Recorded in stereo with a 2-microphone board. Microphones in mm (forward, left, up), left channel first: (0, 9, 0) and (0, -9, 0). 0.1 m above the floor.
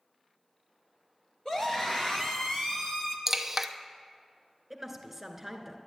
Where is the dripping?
15° right (ahead or behind), 0.8 m.